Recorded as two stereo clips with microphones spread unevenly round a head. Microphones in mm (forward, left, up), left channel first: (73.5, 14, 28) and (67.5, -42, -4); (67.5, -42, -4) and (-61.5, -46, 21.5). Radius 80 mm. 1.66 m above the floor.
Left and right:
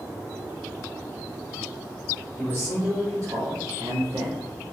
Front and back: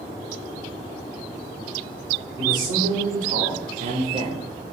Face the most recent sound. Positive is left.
turn(degrees=-150)